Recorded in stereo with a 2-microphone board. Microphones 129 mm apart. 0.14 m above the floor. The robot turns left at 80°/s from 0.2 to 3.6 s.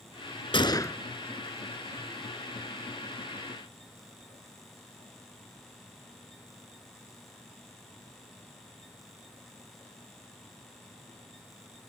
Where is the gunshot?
55° left, 0.7 m; by 1.0 s 20° left, 0.7 m.